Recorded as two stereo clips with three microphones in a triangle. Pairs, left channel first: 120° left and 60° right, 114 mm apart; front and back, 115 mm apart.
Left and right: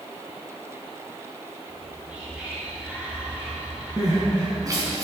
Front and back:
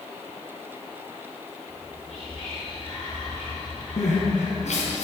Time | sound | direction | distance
1.7 | whispering | 15° left | 2.5 m
4.0 | crying | straight ahead | 3.5 m